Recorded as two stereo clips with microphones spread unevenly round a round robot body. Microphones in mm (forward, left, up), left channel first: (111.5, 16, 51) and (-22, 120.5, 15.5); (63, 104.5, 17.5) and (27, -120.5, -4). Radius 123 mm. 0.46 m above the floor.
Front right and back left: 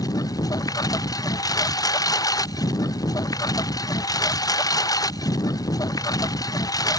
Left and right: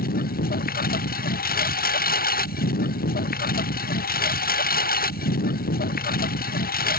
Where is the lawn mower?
30° left.